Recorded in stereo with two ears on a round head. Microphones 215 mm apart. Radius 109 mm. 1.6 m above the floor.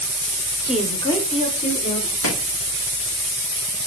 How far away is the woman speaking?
About 0.7 m.